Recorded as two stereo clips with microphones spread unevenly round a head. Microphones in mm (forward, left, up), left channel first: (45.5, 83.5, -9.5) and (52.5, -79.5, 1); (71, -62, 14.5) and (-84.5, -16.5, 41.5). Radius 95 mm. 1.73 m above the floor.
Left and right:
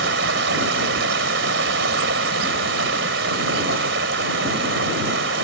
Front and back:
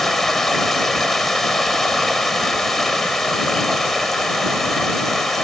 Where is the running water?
110° right.